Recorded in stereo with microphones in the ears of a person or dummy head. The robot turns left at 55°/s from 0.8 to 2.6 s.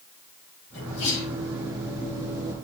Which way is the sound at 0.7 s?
90° left.